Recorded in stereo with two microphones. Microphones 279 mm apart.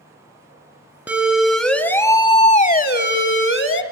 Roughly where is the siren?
Centre.